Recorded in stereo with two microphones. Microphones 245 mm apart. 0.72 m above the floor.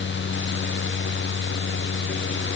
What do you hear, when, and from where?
Only background noise.